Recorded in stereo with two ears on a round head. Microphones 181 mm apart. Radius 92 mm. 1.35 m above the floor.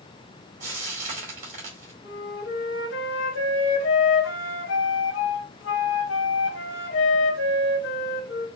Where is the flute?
65° left (ahead or behind), 1.4 m.